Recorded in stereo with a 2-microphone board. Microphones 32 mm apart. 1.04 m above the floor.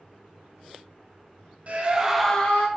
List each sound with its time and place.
1.7 s a scream: 45° right (ahead or behind), 0.7 m; by 2.7 s 45° left (ahead or behind), 0.6 m